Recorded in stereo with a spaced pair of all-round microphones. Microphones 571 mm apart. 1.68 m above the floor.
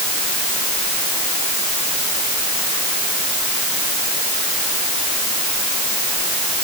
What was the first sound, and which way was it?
Only background noise.